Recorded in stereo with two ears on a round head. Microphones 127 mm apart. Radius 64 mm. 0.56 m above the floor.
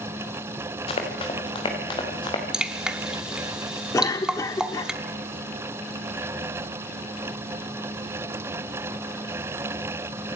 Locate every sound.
0.9 s running footsteps: 40° left (ahead or behind), 4.5 m; by 2.4 s 30° left (ahead or behind), 5 m
2.5 s dripping: 5° right (ahead or behind), 1.0 m
3.9 s a cough: 25° left (ahead or behind), 1.2 m